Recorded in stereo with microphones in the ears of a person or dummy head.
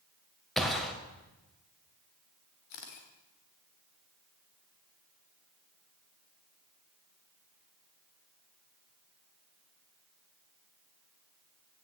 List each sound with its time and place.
0.6 s a gunshot: 5° right (ahead or behind), 1.7 m
2.7 s a camera shutter: 50° left (ahead or behind), 2.5 m